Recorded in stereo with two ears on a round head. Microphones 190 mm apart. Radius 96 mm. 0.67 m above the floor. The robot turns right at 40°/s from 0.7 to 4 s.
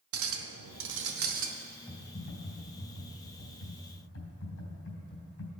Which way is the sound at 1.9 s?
20° left.